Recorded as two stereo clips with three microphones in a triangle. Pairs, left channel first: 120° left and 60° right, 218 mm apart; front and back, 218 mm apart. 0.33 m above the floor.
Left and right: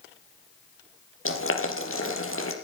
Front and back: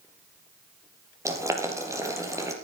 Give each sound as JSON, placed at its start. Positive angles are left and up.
{"t": 1.2, "sound": "boiling", "azimuth_deg": 105, "distance_m": 4.0}